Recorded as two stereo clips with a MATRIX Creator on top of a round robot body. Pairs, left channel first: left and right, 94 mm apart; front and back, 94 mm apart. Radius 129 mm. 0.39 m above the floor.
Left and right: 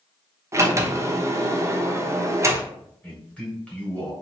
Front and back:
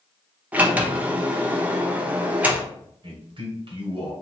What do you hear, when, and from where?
0.5 s a sliding door: 120° right, 0.8 m
3.0 s a man speaking: 165° left, 1.9 m